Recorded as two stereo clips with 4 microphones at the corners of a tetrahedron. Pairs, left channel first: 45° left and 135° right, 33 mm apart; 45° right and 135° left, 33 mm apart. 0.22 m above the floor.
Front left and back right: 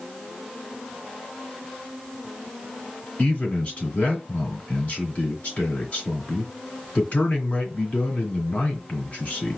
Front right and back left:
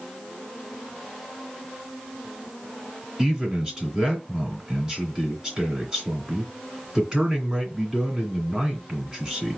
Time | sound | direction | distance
3.2 | a man speaking | 75° left | 2 m